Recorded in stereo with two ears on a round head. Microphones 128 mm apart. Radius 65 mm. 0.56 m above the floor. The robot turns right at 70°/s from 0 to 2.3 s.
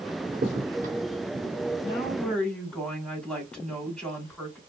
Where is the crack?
40° right (ahead or behind), 1.2 m; by 1.5 s 35° right (ahead or behind), 1.2 m.